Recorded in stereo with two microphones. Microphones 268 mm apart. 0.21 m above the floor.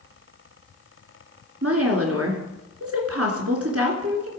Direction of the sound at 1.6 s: 60° right (ahead or behind).